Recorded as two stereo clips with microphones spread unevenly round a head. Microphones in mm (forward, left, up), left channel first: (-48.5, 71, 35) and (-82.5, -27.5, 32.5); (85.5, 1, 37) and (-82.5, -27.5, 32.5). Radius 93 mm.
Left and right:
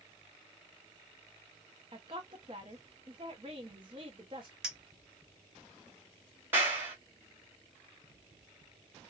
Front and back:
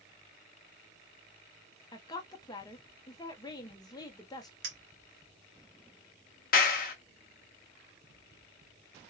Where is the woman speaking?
55° right, 0.6 m.